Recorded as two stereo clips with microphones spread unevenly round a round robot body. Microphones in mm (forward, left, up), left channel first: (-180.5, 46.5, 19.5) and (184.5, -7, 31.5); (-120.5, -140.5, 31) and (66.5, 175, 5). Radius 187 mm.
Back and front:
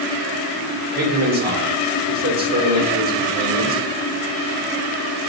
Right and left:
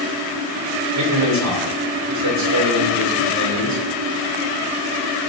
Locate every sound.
0.9 s a man speaking: 50° left, 1.8 m